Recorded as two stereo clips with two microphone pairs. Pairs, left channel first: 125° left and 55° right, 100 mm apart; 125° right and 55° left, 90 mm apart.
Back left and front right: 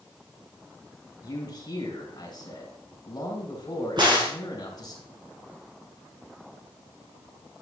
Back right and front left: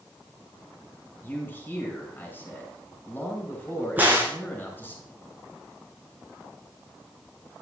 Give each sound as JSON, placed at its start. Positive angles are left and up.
{"t": 1.2, "sound": "a man speaking", "azimuth_deg": 165, "distance_m": 3.0}
{"t": 4.0, "sound": "a crack", "azimuth_deg": -15, "distance_m": 3.0}